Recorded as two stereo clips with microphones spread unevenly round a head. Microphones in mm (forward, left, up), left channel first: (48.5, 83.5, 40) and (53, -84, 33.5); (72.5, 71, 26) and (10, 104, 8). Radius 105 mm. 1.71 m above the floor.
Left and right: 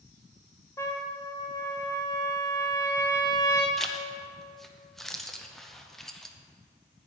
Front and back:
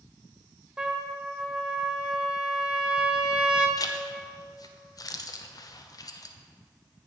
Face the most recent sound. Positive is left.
turn(degrees=5)